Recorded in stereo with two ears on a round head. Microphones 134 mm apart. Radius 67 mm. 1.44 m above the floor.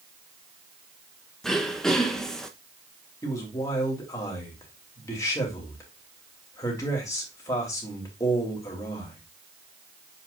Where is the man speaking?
20° left (ahead or behind), 3 m.